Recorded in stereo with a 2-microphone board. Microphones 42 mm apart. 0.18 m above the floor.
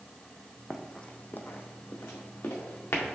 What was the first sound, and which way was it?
Running footsteps, centre (ahead or behind).